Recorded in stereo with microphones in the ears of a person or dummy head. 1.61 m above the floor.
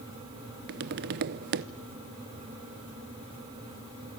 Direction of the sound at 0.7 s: 50° right (ahead or behind).